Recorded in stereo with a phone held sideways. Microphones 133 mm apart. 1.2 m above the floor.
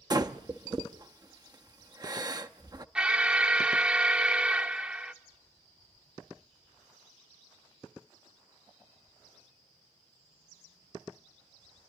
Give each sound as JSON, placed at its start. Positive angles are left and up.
{"t": 0.1, "sound": "breathing", "side_deg": -30, "distance_m": 0.7}
{"t": 3.0, "sound": "an alarm", "side_deg": -5, "distance_m": 0.8}